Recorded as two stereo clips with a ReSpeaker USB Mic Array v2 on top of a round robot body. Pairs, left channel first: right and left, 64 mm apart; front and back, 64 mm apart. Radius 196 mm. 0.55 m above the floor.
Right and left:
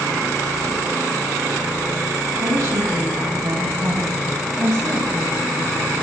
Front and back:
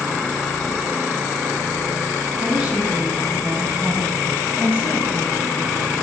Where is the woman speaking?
105° left, 8 m; by 5.9 s 115° left, 10.5 m.